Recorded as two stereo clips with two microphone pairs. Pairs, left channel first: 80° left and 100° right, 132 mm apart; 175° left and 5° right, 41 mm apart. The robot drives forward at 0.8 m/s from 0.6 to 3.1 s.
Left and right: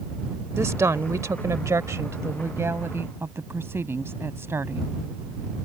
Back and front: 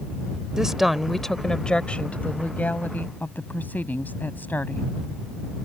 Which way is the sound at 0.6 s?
60° right.